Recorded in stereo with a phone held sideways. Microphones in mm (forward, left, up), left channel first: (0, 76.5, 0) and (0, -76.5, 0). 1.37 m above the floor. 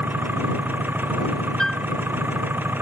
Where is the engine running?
10° right (ahead or behind).